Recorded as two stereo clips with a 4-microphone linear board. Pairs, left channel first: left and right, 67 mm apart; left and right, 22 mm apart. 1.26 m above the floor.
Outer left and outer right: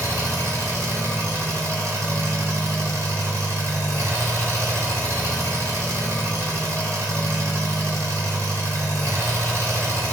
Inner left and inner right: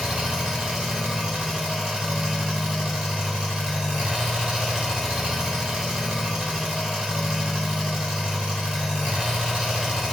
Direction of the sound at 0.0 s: 45° right (ahead or behind).